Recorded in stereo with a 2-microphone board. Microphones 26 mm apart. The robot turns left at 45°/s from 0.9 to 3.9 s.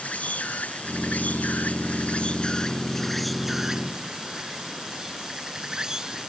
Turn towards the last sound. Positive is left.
turn(degrees=-30)